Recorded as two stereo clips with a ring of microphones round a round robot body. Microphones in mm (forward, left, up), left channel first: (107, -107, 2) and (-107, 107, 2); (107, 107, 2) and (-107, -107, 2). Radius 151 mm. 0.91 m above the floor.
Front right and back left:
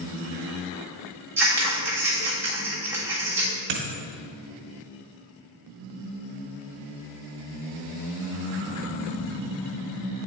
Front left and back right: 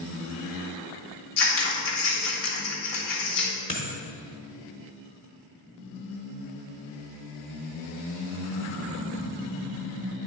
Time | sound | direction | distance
1.4 | scissors | 50° left | 1.5 m
3.7 | a dropped coin | 120° left | 1.0 m